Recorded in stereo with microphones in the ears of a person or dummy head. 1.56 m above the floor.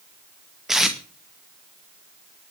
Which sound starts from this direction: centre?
Tape being pulled, at 0.7 s.